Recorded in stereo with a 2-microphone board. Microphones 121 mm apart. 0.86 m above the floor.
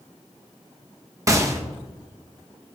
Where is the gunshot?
25° right (ahead or behind), 0.7 m.